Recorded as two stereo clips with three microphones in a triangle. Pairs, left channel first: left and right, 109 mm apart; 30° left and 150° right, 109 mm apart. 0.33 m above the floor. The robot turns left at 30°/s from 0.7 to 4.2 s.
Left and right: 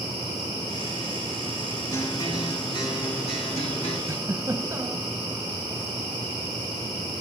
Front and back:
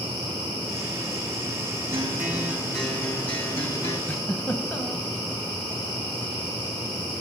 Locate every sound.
1.9 s a guitar: 145° left, 4.5 m; by 4.0 s 85° left, 4.5 m
4.1 s a giggle: 35° right, 2.0 m; by 5.1 s 40° right, 2.0 m